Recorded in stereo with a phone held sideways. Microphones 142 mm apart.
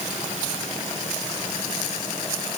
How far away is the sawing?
No sawing in this recording.